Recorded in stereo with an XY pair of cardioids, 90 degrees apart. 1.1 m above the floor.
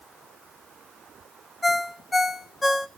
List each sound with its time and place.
1.6 s a ringtone: 30° left, 0.8 m